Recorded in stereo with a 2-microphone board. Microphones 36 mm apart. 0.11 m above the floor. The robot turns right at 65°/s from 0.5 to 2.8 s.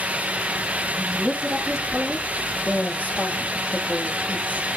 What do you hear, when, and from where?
1.0 s a woman speaking: 60° right, 3 m; by 4.7 s 60° left, 3 m